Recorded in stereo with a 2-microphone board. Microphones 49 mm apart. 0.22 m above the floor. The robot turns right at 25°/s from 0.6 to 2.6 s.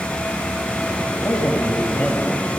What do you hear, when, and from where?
1.2 s a man speaking: 120° left, 6 m; by 2.6 s 155° left, 6 m